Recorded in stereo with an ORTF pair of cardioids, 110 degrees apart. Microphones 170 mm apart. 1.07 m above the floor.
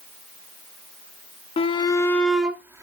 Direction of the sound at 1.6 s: 35° left.